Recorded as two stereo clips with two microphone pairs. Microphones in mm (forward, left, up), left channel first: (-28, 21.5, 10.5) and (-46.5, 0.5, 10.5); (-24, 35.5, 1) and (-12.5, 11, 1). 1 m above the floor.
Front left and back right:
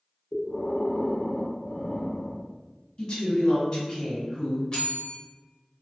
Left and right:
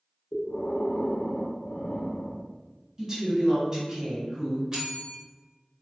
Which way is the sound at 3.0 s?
Straight ahead.